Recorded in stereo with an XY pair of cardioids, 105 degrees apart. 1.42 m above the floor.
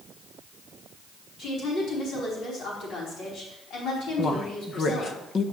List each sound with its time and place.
1.4 s a woman speaking: 70° left, 4.5 m
4.2 s a woman speaking: 50° left, 1.1 m